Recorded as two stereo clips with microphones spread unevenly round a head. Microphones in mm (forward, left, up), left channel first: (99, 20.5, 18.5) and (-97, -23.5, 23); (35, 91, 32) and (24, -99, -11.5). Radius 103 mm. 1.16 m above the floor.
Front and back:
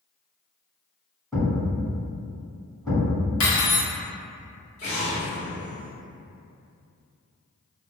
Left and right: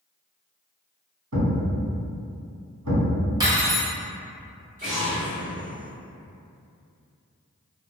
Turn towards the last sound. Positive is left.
turn(degrees=-40)